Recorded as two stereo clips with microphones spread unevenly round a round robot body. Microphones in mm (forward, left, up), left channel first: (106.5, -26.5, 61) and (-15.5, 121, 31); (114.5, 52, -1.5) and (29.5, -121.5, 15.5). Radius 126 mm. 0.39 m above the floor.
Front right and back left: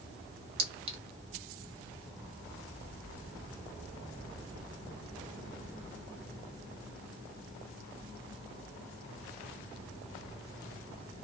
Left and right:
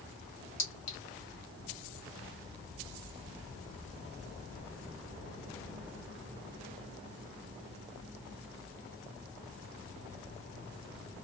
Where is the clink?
95° left, 1.1 m.